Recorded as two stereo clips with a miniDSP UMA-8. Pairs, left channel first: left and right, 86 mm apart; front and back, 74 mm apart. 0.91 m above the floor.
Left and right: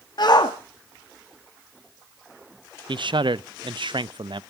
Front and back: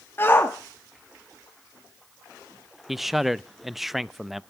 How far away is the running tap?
No running tap in this recording.